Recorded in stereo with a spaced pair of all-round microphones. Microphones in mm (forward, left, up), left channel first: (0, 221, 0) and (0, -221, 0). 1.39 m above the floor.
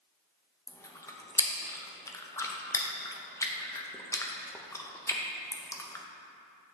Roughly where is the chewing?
Centre.